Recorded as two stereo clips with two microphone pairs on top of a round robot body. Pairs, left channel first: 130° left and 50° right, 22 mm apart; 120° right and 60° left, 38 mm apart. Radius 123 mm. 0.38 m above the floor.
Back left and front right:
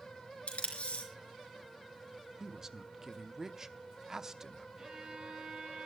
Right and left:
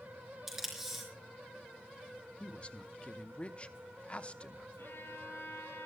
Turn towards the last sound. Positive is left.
turn(degrees=-105)